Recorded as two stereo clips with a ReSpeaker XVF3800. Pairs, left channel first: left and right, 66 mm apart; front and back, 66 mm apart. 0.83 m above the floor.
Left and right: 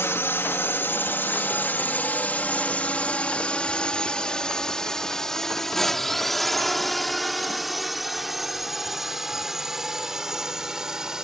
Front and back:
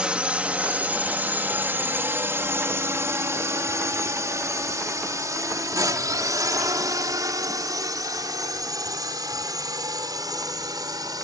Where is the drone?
115° left; by 11.2 s 170° right.